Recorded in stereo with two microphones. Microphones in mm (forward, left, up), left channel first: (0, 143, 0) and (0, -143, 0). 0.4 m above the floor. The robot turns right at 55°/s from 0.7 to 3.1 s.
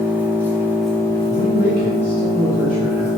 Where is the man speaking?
110° left, 1.8 m; by 3.1 s 150° right, 1.8 m.